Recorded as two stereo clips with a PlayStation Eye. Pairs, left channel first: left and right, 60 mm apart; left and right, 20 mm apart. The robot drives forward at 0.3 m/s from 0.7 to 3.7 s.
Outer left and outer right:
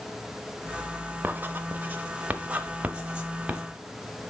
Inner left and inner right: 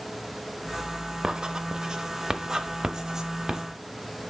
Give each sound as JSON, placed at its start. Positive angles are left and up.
{"t": 1.2, "sound": "writing", "side_deg": -35, "distance_m": 0.6}